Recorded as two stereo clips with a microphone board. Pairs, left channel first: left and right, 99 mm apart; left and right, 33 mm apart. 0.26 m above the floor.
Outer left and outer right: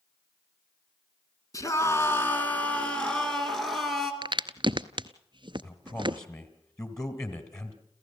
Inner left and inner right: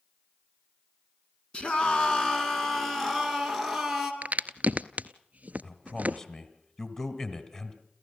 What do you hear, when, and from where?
1.5 s a scream: 35° left (ahead or behind), 2.5 m; by 4.1 s centre (ahead or behind), 4 m
4.2 s a crack: 50° right (ahead or behind), 0.7 m
5.6 s a man speaking: 30° left (ahead or behind), 1.8 m